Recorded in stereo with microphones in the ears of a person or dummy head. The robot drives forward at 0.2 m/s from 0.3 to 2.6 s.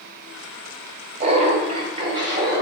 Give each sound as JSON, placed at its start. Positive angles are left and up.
{"t": 1.2, "sound": "laughter", "side_deg": -30, "distance_m": 0.7}